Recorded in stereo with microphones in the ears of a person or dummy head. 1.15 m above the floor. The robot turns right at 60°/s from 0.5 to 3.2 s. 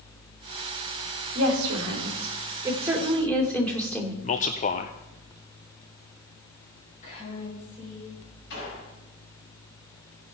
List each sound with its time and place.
1.4 s a woman speaking: 105° right, 2.5 m; by 4.1 s 10° left, 2.5 m
4.2 s a man speaking: 40° left (ahead or behind), 0.5 m
7.0 s a woman speaking: 40° left (ahead or behind), 6.5 m
8.5 s a gunshot: 60° left (ahead or behind), 5.5 m